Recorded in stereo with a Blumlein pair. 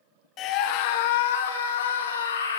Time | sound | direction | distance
0.4 | a scream | 35° left | 1.3 m